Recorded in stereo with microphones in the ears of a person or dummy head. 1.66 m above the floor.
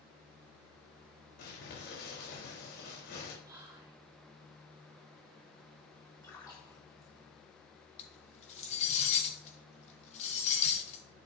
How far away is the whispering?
About 3 m.